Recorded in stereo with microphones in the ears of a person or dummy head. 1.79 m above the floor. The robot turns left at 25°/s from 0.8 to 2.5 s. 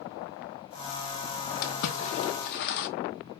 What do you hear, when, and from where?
1.6 s a splash: 50° left (ahead or behind), 0.9 m; by 2.9 s 55° left (ahead or behind), 0.9 m